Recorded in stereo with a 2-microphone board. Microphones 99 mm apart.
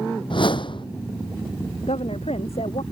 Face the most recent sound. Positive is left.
turn(degrees=85)